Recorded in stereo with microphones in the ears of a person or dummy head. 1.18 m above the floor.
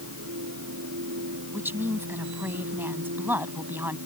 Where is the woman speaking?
10° right (ahead or behind).